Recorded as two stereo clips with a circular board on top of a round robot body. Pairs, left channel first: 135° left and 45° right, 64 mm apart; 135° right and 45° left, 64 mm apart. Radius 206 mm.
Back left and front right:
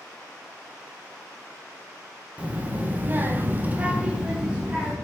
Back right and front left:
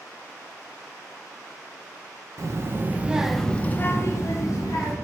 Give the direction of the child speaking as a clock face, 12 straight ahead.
11 o'clock.